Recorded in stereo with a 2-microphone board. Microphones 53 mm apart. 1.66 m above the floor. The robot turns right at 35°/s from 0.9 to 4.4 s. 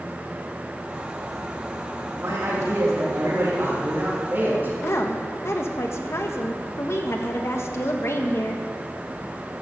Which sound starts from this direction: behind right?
A man speaking, at 2.1 s.